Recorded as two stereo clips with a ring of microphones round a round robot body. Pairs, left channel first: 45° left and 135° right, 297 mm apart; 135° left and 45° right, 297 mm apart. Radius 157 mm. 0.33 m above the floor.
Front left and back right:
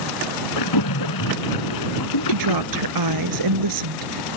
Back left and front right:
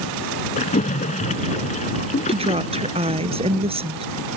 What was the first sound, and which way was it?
A splash, 65° left.